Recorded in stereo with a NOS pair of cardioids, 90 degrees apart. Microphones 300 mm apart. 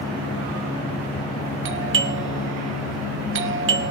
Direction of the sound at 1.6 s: 45° right.